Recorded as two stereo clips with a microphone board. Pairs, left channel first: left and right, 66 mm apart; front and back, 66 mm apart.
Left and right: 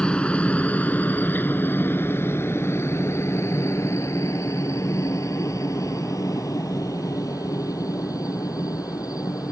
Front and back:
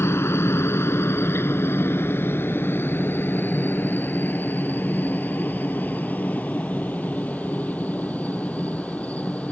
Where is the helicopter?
25° left; by 9.5 s 70° left.